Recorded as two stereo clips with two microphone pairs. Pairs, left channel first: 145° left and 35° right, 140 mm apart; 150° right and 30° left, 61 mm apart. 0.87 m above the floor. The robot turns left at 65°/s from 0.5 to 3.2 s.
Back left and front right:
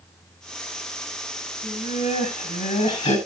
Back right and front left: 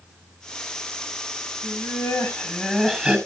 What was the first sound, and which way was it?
Laughter, 150° right.